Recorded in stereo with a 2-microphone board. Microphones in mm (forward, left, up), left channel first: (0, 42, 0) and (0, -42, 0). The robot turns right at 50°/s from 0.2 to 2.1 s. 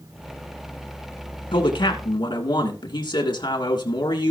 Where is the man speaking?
70° left (ahead or behind), 2.5 m; by 4.3 s 60° left (ahead or behind), 2.5 m.